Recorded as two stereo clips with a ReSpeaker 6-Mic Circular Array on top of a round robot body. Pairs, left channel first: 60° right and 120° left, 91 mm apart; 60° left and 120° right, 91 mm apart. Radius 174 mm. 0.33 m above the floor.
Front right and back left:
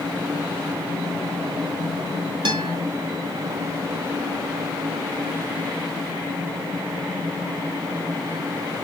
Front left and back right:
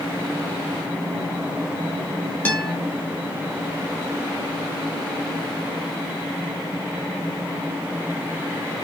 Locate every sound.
2.5 s a guitar: 130° left, 0.9 m